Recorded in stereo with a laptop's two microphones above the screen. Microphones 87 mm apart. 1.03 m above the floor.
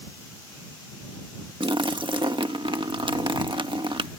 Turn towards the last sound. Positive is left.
turn(degrees=-70)  # may be behind; listen again after turning